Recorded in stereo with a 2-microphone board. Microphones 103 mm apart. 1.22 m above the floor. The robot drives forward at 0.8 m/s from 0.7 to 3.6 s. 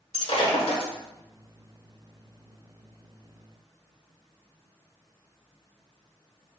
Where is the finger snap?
I don't hear a finger snap.